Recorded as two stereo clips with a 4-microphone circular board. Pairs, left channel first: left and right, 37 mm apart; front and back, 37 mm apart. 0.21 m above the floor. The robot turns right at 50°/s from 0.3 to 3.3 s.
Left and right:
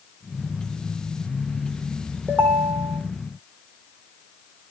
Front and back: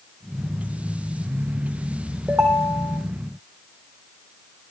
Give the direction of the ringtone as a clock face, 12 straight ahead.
4 o'clock.